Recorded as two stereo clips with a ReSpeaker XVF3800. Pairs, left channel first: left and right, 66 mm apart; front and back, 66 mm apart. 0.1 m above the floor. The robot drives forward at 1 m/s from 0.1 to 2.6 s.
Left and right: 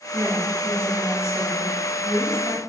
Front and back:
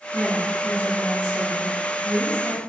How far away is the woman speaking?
About 1.4 m.